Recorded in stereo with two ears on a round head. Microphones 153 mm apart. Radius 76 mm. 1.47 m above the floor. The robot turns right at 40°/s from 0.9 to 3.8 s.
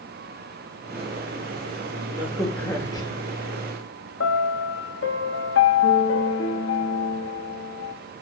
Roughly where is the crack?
Ahead.